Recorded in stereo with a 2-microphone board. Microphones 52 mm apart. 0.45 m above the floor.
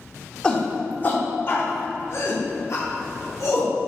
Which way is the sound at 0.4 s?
15° left (ahead or behind).